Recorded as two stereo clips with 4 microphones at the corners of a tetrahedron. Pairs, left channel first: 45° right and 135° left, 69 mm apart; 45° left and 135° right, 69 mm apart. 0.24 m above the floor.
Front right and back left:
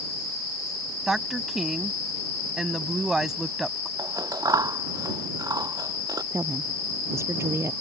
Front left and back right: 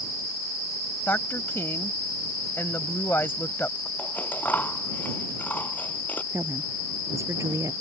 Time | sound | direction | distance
1.1 | a woman speaking | 55° left | ?
4.0 | scissors | 105° left | ?
6.3 | a woman speaking | 175° right | ?